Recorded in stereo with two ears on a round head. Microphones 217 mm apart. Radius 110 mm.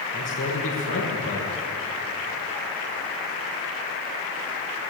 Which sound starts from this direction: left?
A man speaking, at 0.1 s.